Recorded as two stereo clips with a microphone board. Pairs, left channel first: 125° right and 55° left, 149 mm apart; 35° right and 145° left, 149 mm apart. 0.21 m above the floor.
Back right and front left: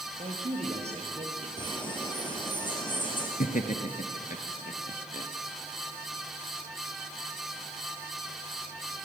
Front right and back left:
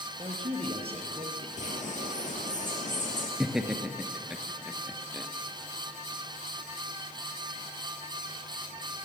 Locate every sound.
0.2 s a man speaking: 95° left, 4.5 m; by 1.5 s 100° left, 4 m
1.6 s a bird: 65° right, 4 m
3.4 s laughter: 130° right, 2.5 m